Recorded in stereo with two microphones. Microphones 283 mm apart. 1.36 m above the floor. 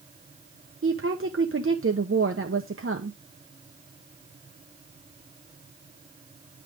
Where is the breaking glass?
No breaking glass in this recording.